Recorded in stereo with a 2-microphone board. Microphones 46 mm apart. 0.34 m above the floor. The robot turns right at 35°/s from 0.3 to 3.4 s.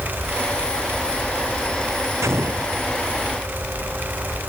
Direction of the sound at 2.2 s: 85° right.